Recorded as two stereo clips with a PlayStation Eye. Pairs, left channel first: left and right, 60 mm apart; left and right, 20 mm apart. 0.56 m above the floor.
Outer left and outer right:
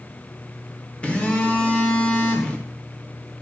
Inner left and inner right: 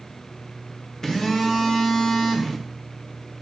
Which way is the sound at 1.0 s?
20° left (ahead or behind).